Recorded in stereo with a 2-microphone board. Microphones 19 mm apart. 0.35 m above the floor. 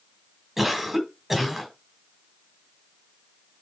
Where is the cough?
10° right (ahead or behind), 2 m.